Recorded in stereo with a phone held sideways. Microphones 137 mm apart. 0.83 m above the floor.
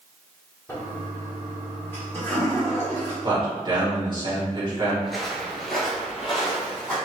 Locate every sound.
0.7 s a toilet flushing: 15° left (ahead or behind), 1.2 m
3.2 s a man speaking: 35° right (ahead or behind), 1.6 m
5.0 s footsteps: centre (ahead or behind), 0.9 m